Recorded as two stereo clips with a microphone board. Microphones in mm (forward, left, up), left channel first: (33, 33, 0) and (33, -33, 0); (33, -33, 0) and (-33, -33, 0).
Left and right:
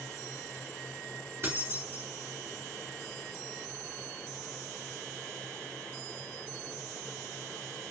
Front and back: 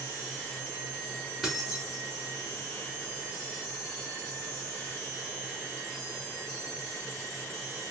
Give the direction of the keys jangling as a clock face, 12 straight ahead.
3 o'clock.